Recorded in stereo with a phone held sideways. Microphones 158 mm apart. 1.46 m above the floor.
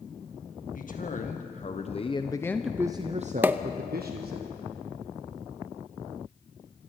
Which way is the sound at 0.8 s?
60° left (ahead or behind).